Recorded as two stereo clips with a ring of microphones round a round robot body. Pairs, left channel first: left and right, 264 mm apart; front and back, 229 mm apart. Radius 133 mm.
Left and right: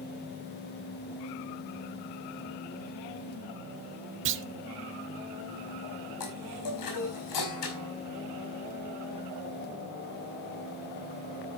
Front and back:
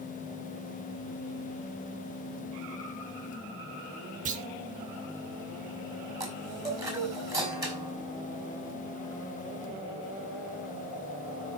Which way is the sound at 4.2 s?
125° right.